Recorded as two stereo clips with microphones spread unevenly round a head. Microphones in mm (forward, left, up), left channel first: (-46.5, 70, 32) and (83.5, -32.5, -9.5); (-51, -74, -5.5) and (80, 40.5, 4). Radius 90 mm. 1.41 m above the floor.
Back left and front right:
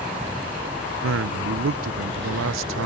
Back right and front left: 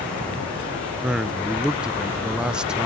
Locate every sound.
1.0 s a man speaking: 40° right, 0.5 m